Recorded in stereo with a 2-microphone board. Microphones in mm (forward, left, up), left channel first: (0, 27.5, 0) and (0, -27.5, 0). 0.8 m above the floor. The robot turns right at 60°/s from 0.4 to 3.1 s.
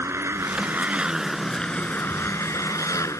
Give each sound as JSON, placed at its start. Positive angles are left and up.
{"t": 0.0, "sound": "a motorcycle", "azimuth_deg": -55}